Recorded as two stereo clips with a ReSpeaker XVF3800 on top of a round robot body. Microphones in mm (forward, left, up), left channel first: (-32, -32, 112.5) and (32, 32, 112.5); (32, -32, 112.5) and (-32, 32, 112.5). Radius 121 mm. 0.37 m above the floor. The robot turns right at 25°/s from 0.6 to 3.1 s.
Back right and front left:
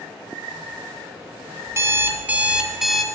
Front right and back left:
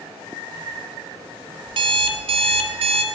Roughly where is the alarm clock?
Left.